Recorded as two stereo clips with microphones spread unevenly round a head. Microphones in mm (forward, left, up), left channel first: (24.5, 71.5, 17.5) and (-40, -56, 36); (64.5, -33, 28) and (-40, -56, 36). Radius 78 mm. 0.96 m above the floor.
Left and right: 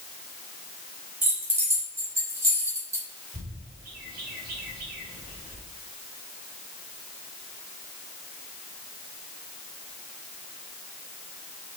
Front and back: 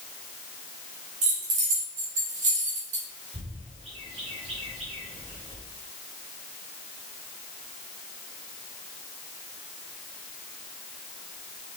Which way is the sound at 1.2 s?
165° left.